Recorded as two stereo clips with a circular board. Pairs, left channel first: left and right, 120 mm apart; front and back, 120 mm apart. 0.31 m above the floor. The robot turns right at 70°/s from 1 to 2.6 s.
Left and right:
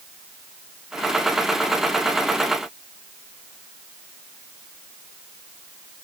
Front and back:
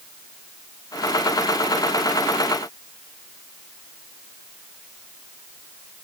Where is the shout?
I don't hear a shout.